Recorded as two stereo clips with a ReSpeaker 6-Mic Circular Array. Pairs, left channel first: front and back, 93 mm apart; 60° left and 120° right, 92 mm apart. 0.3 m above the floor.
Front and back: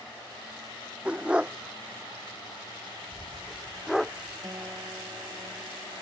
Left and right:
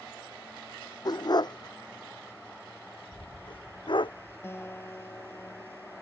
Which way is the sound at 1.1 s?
105° left.